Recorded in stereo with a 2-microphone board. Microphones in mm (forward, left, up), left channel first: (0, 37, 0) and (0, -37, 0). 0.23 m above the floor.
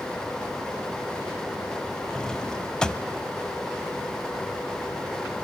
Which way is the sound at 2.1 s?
10° left (ahead or behind).